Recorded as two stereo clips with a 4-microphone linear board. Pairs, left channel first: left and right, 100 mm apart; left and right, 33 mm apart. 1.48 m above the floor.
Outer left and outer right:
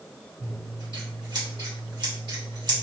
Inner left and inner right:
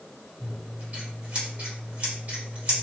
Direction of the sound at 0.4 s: 45° right (ahead or behind).